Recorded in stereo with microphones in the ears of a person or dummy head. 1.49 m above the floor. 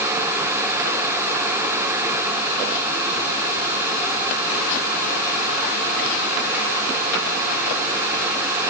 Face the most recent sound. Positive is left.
No sound to turn to.